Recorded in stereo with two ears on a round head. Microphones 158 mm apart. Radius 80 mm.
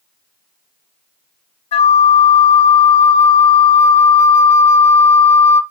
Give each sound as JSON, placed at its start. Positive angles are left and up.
{"t": 1.7, "sound": "a flute", "side_deg": 35, "distance_m": 1.0}